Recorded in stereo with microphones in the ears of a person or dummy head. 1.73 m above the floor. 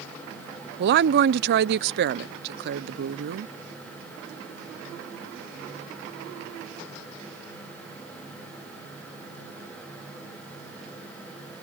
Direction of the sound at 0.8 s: 60° right (ahead or behind).